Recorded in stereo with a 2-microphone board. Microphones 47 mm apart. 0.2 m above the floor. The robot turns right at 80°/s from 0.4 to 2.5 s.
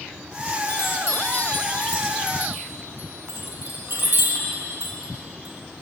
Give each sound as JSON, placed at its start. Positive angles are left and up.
{"t": 0.7, "sound": "a chime", "side_deg": 80, "distance_m": 4.5}